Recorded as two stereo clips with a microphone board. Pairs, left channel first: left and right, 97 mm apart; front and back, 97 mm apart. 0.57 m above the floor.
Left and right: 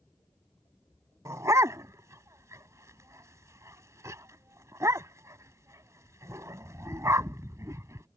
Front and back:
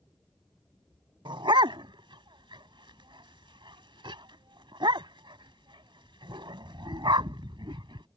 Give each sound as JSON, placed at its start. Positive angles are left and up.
{"t": 1.2, "sound": "a dog barking", "azimuth_deg": -150}